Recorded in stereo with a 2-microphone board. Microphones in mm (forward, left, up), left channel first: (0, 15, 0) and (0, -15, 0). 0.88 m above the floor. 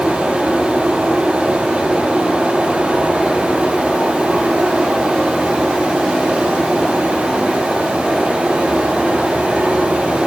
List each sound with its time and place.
0.0 s running water: 55° right (ahead or behind), 8 m